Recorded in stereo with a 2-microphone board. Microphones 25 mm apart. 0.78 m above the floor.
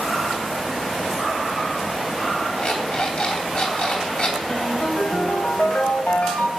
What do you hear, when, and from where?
2.6 s an alarm clock: 55° left (ahead or behind), 3 m
4.5 s a ringtone: 70° left (ahead or behind), 2.0 m